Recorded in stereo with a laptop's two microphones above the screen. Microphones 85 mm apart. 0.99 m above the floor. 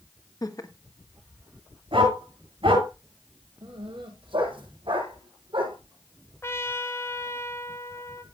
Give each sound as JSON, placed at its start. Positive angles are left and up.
{"t": 0.4, "sound": "laughter", "side_deg": 45, "distance_m": 1.6}
{"t": 1.9, "sound": "a dog barking", "side_deg": -85, "distance_m": 9.5}
{"t": 3.6, "sound": "a dog barking", "side_deg": -80, "distance_m": 10.0}
{"t": 6.4, "sound": "a trumpet", "side_deg": 30, "distance_m": 1.4}